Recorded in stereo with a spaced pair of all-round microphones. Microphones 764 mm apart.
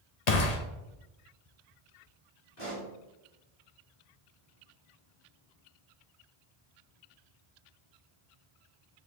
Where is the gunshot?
55° left (ahead or behind), 0.9 m.